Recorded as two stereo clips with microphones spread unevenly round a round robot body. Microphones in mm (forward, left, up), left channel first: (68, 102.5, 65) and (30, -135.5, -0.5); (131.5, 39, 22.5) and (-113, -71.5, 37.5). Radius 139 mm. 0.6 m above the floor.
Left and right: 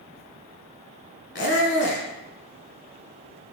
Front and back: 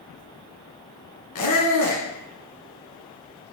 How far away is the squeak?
About 1.5 m.